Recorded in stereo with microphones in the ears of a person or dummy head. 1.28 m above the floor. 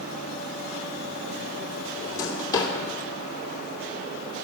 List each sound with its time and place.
2.0 s a drawer: 25° left (ahead or behind), 2.5 m